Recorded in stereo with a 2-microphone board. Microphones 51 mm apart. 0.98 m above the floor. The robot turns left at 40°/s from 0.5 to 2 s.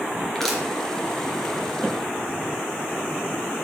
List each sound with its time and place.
0.3 s crushing: 5° left (ahead or behind), 3 m; by 0.6 s centre (ahead or behind), 3 m